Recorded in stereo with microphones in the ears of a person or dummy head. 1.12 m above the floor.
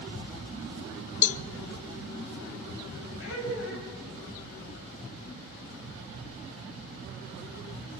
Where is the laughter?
75° left (ahead or behind), 8 m.